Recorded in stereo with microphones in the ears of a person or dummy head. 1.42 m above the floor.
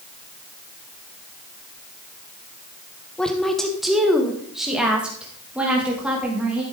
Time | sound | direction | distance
3.2 | a woman speaking | 5° left (ahead or behind) | 1.1 m